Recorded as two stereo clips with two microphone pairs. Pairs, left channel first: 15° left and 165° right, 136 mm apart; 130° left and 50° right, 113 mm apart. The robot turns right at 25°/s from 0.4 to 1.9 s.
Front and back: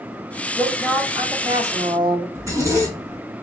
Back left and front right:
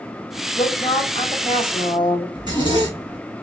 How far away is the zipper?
About 1.6 m.